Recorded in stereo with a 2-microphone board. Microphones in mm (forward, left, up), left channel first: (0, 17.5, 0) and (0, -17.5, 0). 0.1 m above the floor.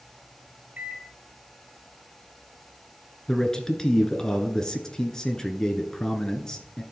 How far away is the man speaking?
About 1.1 m.